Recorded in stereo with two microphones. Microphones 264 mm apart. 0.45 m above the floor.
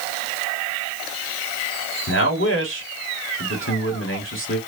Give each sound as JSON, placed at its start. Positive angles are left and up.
{"t": 2.1, "sound": "a man speaking", "side_deg": 50, "distance_m": 1.3}